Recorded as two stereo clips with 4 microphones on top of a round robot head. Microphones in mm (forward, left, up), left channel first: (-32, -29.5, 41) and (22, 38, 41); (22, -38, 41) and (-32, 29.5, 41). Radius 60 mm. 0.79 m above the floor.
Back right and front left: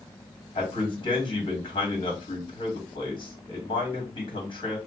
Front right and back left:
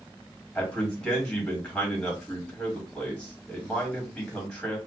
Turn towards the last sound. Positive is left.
turn(degrees=-135)